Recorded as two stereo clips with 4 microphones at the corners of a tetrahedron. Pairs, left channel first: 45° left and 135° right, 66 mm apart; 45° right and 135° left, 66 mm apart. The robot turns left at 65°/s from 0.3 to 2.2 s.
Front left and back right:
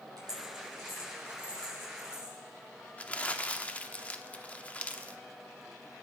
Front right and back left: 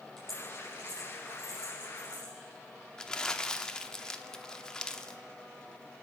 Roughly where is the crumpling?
Ahead.